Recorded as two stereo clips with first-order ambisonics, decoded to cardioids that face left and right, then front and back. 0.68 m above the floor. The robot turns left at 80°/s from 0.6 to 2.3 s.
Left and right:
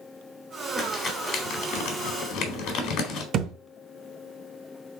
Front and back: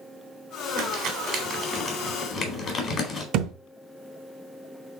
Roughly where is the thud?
Behind right.